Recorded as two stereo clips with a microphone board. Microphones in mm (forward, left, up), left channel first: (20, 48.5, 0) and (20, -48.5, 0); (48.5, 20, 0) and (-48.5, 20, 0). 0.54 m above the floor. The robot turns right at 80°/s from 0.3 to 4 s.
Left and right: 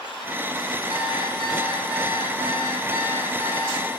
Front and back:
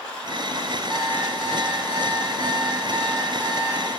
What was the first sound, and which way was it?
An alarm clock, 95° right.